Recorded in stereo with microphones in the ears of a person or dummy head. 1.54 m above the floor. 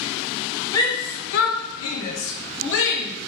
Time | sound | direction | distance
0.7 | a shout | 20° left (ahead or behind) | 0.6 m